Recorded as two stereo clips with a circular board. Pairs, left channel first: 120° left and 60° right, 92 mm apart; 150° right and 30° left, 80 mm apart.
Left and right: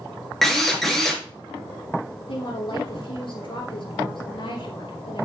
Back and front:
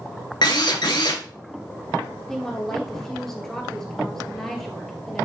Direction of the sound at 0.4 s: 155° right.